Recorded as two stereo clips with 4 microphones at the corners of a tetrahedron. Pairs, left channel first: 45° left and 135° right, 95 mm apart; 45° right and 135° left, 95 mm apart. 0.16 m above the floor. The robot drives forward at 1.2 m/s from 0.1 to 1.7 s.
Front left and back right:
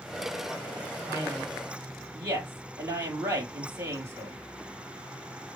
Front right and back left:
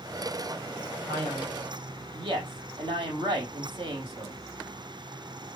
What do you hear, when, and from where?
1.1 s a man speaking: 160° left, 4.5 m